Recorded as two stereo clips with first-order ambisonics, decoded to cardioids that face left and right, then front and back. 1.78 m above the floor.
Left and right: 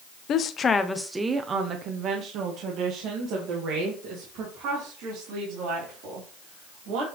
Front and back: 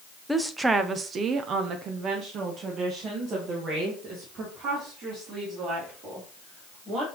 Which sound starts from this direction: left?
A woman speaking, at 0.3 s.